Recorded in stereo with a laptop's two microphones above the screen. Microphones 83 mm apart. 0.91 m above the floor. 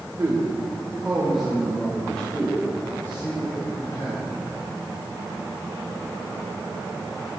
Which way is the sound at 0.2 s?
25° right (ahead or behind).